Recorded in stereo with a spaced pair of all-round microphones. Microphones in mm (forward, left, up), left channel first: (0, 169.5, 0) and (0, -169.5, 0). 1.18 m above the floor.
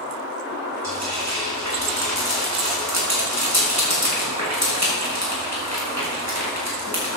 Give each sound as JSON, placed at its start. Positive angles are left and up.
{"t": 0.8, "sound": "frying", "side_deg": -50, "distance_m": 6.0}